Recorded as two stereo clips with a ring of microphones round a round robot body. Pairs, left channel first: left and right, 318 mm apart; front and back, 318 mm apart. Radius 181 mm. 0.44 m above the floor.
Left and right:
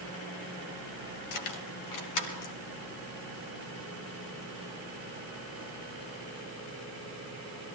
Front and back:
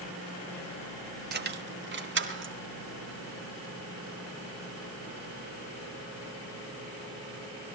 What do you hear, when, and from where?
1.3 s keys jangling: 120° left, 2 m; by 2.5 s 125° left, 4 m